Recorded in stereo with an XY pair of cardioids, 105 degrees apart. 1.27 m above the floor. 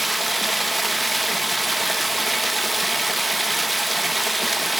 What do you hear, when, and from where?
0.0 s running water: 5° right, 1.2 m